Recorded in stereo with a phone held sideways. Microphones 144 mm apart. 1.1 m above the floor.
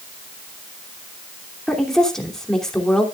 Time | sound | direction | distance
1.7 | a woman speaking | 5° left (ahead or behind) | 2.5 m